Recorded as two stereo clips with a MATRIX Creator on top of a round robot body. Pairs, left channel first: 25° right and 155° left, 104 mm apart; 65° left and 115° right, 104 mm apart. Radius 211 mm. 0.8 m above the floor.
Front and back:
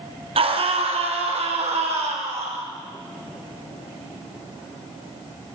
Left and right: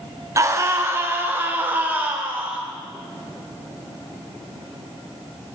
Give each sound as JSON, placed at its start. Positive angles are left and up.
{"t": 0.4, "sound": "a scream", "azimuth_deg": -175, "distance_m": 1.8}